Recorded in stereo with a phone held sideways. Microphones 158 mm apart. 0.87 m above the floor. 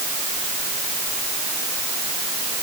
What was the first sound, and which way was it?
Only background noise.